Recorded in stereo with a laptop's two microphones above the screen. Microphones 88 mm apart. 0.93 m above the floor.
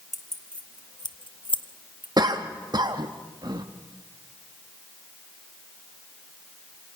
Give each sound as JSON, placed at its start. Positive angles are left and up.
{"t": 0.1, "sound": "keys jangling", "side_deg": 0, "distance_m": 1.3}
{"t": 2.2, "sound": "a cough", "side_deg": -50, "distance_m": 1.5}